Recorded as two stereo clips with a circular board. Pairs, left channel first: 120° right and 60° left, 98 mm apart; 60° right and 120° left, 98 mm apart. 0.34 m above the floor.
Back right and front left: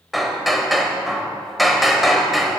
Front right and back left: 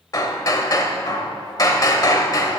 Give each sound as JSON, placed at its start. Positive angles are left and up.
{"t": 0.1, "sound": "hammering", "azimuth_deg": -30, "distance_m": 1.0}